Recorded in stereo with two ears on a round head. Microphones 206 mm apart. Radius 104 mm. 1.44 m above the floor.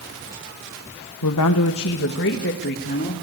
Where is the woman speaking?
80° left, 1.2 m; by 3.1 s 40° left (ahead or behind), 3.5 m.